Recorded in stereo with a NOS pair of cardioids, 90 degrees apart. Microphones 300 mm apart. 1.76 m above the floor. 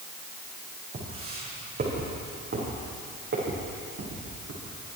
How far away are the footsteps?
About 5.5 m.